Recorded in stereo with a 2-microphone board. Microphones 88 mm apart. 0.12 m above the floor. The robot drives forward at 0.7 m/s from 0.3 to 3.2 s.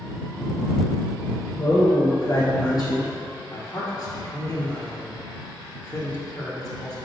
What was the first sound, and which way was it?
A man speaking, 55° left (ahead or behind).